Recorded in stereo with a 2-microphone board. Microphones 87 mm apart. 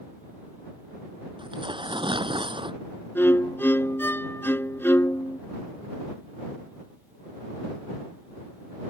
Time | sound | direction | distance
1.4 | tearing paper | 70° right (ahead or behind) | ?
3.1 | a violin | 25° left (ahead or behind) | ?